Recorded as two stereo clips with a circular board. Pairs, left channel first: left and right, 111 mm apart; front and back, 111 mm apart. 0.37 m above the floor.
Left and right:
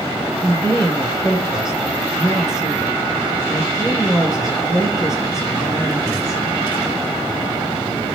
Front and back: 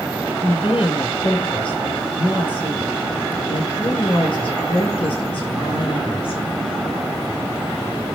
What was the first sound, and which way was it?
A woman speaking, 35° left.